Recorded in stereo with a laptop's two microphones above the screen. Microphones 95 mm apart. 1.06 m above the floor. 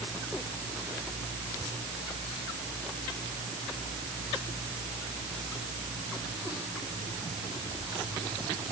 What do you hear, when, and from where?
Only background noise.